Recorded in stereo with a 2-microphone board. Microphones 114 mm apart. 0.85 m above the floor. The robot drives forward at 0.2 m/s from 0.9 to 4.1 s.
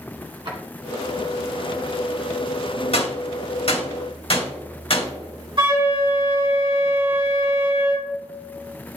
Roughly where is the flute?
Right.